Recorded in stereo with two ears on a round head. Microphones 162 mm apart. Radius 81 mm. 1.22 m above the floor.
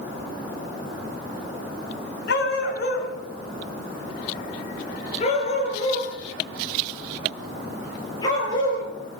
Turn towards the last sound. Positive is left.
turn(degrees=20)  # may be behind; listen again after turning